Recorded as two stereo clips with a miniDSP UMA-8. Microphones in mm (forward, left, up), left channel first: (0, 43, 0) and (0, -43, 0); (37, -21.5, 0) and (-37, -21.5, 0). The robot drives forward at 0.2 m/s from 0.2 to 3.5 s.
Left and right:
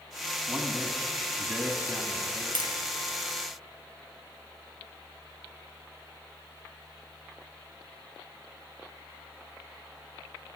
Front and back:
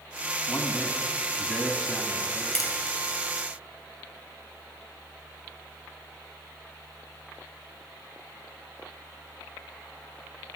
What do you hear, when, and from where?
0.5 s a man speaking: 60° right, 1.0 m; by 2.5 s 115° right, 1.0 m
2.5 s tapping: 85° right, 2 m